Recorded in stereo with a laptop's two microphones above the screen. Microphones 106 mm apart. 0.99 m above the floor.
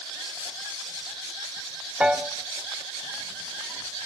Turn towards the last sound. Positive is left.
turn(degrees=-10)  # may be behind; listen again after turning